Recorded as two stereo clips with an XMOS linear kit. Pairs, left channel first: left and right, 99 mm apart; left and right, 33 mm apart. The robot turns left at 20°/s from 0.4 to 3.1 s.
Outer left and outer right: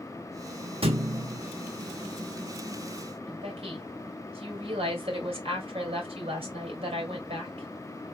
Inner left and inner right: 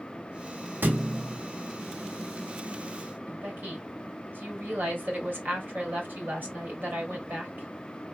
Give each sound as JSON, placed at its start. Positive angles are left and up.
{"t": 0.8, "sound": "a thud", "side_deg": -70, "distance_m": 1.0}
{"t": 3.3, "sound": "a woman speaking", "side_deg": -80, "distance_m": 2.5}